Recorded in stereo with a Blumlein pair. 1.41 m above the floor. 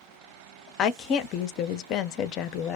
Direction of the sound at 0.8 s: 35° left.